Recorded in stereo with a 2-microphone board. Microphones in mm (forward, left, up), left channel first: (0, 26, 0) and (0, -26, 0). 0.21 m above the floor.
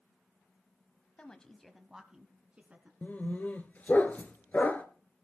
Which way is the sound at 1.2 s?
20° left (ahead or behind).